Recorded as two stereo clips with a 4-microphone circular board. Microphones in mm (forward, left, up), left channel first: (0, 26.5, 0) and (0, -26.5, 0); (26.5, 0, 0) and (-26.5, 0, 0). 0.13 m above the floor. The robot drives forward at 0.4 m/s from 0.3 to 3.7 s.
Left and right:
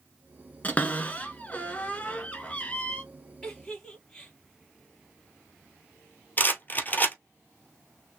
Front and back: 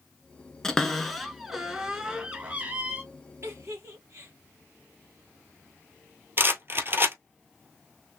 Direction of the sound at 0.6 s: 70° left.